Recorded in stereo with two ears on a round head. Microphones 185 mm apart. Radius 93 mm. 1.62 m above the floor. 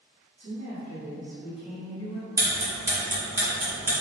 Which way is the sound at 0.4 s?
40° right (ahead or behind).